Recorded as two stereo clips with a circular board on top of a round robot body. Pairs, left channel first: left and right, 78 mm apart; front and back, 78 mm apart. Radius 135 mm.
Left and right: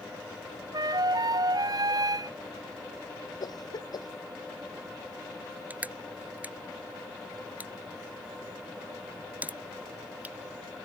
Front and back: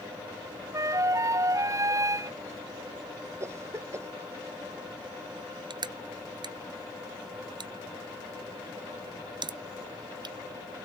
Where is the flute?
130° right.